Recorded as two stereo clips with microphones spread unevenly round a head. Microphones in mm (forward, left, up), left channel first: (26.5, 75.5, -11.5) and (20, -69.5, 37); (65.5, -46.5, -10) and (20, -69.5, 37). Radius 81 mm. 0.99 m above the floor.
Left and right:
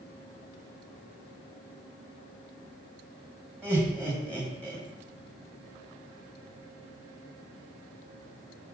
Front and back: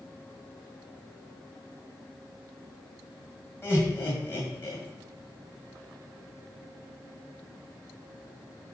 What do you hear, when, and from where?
3.6 s laughter: 10° right, 1.7 m